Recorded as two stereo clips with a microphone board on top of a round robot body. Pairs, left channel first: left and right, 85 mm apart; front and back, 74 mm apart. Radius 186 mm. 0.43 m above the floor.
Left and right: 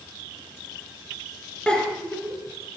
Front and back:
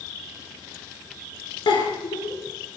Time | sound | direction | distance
1.7 | a giggle | 10° left | 3 m